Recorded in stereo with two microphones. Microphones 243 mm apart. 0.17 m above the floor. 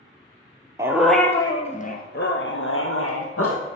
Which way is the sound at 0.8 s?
15° right (ahead or behind).